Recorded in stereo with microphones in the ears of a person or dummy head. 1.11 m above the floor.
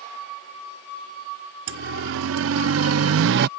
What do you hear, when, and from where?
1.7 s a siren: 70° right (ahead or behind); by 3.5 s 55° right (ahead or behind)